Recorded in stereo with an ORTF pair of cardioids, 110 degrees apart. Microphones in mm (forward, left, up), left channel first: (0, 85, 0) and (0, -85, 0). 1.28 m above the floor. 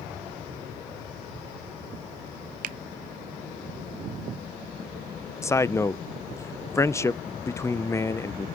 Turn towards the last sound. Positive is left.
turn(degrees=15)